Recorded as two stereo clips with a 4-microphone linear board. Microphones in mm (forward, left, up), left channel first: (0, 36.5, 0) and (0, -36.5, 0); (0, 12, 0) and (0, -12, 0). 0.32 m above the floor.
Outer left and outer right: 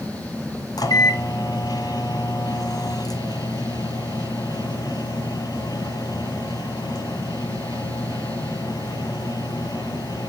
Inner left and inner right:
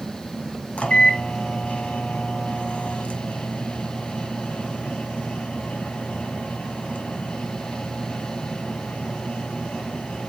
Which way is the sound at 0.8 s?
60° left (ahead or behind).